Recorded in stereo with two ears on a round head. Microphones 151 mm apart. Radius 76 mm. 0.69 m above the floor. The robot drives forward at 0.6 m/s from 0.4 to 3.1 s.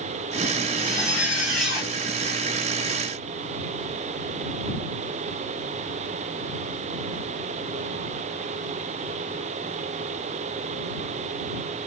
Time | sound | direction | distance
0.8 | a zipper | 5° right (ahead or behind) | 1.8 m